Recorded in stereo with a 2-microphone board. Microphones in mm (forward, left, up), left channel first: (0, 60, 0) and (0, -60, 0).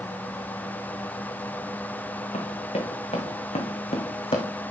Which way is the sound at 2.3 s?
70° left (ahead or behind).